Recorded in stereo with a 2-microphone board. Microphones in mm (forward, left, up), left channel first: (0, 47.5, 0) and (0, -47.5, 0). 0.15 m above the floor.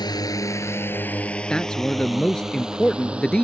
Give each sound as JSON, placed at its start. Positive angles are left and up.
{"t": 0.0, "sound": "a drone", "side_deg": 45}
{"t": 1.5, "sound": "a man speaking", "side_deg": 10}